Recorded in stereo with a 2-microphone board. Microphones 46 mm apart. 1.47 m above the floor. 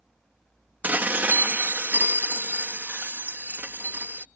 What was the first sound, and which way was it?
Dishes clattering, 40° right (ahead or behind).